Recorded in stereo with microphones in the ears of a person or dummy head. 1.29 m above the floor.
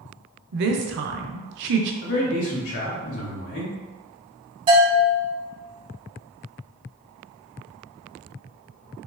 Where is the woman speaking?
60° right (ahead or behind), 0.5 m.